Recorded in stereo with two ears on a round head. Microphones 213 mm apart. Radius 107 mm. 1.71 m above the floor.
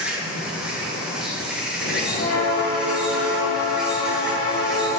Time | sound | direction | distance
0.0 | an insect | 5° right (ahead or behind) | 1.4 m
1.8 | a bell | 45° left (ahead or behind) | 3 m